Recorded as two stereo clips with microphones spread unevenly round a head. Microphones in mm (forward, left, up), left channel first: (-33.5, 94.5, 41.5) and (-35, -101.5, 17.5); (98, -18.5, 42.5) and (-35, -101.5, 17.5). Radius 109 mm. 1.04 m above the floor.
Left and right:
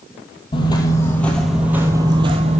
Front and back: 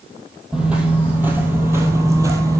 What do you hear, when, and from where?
0.5 s footsteps: 115° left, 1.2 m; by 2.6 s 90° right, 1.1 m